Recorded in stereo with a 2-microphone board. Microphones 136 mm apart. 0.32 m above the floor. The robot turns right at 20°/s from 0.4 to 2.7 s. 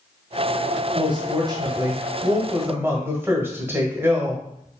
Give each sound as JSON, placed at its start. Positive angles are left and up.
{"t": 0.9, "sound": "a woman speaking", "azimuth_deg": -60, "distance_m": 1.2}